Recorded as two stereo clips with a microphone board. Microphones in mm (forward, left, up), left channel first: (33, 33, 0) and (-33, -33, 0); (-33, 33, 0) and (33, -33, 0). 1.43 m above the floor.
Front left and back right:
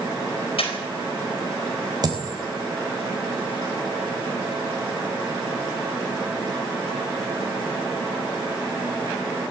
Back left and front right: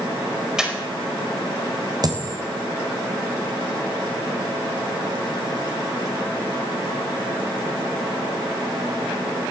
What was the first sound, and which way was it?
Breathing, 40° left.